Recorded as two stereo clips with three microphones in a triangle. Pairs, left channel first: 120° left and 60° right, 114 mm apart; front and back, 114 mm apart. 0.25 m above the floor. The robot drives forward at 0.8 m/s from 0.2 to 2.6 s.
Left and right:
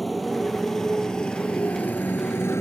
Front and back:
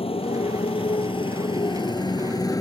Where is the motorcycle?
30° left; by 2.6 s 55° left.